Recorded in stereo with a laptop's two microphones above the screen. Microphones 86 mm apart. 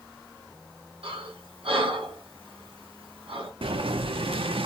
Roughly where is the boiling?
Right.